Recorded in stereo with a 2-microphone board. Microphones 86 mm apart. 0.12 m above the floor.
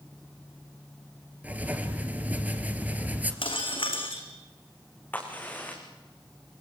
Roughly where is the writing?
Centre.